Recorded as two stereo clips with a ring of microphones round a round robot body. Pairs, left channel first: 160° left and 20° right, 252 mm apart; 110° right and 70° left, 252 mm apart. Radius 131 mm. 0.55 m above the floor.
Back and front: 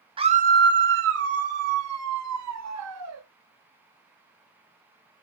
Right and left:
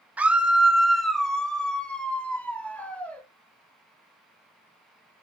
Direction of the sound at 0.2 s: 5° right.